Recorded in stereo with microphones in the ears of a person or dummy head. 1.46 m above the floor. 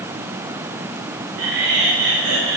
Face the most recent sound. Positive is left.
turn(degrees=-85)